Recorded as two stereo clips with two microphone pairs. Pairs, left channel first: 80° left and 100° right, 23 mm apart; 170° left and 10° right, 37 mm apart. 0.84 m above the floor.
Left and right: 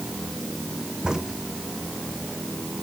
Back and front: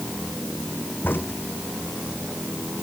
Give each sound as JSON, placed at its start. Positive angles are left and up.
{"t": 1.0, "sound": "a crack", "azimuth_deg": -170}